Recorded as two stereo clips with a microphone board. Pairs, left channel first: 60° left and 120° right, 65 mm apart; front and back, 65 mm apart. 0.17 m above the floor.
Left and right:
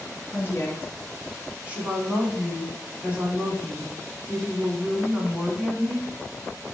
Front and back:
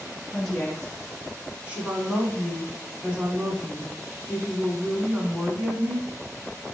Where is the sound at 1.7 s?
155° right, 1.1 m.